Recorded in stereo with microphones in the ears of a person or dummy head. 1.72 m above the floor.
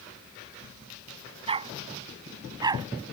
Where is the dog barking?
35° right (ahead or behind); by 2.9 s 25° right (ahead or behind).